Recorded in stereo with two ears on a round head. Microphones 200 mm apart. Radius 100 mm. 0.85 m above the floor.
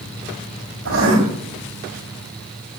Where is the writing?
65° right (ahead or behind), 7 m.